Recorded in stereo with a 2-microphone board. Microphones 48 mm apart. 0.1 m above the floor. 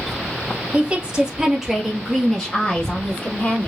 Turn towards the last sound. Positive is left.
turn(degrees=35)  # may be behind; listen again after turning